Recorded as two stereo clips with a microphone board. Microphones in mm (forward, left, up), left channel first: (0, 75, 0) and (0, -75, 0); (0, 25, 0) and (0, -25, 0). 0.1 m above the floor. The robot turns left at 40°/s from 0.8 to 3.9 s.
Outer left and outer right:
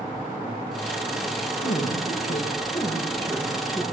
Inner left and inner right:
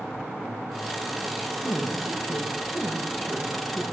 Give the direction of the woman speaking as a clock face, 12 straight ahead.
9 o'clock.